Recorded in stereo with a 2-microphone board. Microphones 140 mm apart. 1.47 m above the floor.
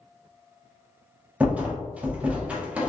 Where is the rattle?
10° right (ahead or behind), 0.6 m.